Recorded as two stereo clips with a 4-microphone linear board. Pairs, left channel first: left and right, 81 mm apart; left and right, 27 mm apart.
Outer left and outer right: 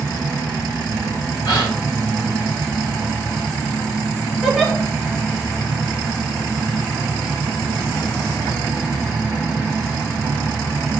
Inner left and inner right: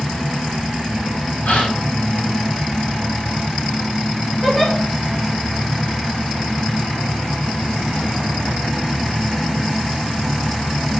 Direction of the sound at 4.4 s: 5° right (ahead or behind).